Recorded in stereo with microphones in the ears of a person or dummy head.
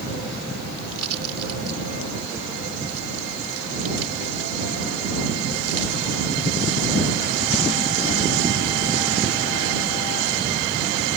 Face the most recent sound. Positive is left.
turn(degrees=-85)